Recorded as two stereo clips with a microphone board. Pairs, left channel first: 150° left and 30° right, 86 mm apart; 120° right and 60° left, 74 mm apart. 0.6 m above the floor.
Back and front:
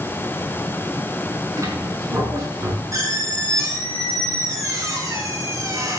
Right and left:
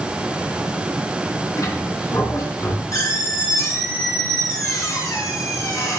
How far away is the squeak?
About 4 m.